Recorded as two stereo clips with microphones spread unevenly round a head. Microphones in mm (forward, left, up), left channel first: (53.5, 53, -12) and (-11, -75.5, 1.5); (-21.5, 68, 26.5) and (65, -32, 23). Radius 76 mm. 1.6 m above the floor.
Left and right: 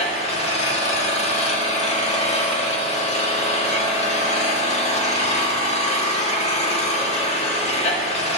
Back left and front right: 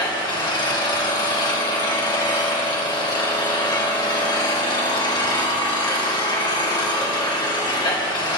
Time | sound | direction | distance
0.0 | an engine running | 90° left | 1.3 m